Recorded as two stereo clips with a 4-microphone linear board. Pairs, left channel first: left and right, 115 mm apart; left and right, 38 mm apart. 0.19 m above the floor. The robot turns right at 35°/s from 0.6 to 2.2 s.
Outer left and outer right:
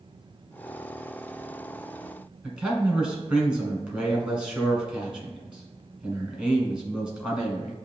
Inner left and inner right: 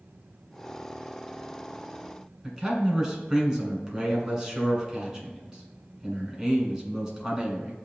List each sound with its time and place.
2.4 s a man speaking: 10° right (ahead or behind), 1.7 m